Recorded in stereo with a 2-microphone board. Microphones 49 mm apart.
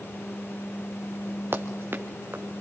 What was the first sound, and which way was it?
Running footsteps, 50° right (ahead or behind).